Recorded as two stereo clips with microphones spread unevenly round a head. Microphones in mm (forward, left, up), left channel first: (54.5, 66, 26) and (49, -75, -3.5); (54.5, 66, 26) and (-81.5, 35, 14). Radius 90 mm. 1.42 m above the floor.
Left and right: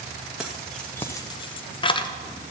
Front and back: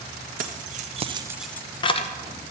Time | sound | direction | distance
0.4 | keys jangling | 175° left | 1.1 m